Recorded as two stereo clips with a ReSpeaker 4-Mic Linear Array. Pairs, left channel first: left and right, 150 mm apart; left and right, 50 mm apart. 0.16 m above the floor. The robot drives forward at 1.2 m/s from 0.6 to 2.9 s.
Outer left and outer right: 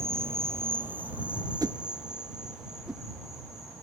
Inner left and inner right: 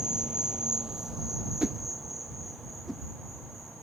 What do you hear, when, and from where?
0.0 s an insect: 15° right (ahead or behind), 0.9 m; by 3.8 s 5° right (ahead or behind), 3.5 m
1.6 s a whoosh: 25° right (ahead or behind), 0.5 m; by 3.0 s 5° right (ahead or behind), 2.0 m